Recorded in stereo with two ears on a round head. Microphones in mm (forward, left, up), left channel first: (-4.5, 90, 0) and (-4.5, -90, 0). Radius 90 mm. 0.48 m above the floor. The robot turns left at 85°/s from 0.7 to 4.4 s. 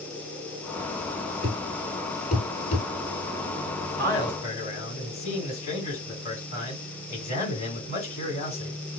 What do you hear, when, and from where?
1.4 s a thud: 75° right (ahead or behind), 1.7 m; by 2.9 s 45° left (ahead or behind), 1.7 m
4.0 s a man speaking: 175° left, 3 m; by 8.8 s 140° left, 3 m